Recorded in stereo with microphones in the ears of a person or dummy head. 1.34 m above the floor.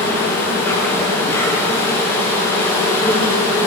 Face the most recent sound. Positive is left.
turn(degrees=10)  # may be behind; listen again after turning